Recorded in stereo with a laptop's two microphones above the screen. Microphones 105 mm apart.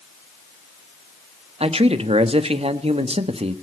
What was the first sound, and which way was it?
A man speaking, 65° right (ahead or behind).